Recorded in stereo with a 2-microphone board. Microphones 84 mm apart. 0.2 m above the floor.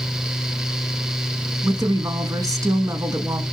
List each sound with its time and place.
1.6 s a woman speaking: 45° right (ahead or behind), 1.5 m